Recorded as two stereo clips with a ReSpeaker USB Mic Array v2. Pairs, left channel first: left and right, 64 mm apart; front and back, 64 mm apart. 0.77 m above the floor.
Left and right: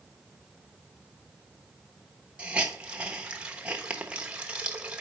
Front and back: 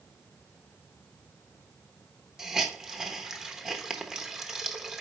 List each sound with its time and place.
2.4 s a hiss: 120° right, 0.9 m